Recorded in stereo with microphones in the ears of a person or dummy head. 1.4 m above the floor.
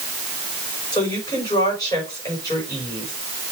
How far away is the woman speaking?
About 5.5 m.